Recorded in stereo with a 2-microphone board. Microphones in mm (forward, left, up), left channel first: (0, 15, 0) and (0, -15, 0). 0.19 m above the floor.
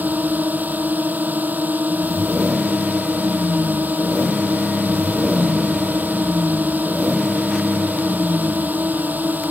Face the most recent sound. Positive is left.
turn(degrees=-70)  # may be behind; listen again after turning